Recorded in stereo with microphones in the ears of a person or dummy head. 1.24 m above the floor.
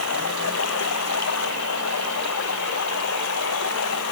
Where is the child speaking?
No child speaking in this recording.